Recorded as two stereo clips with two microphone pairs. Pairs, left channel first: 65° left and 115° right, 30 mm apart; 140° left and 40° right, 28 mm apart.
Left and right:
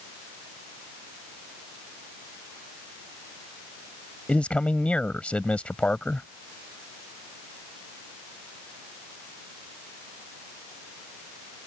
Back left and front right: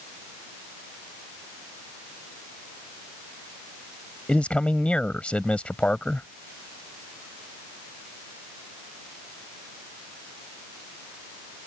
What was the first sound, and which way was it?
A man speaking, 105° left.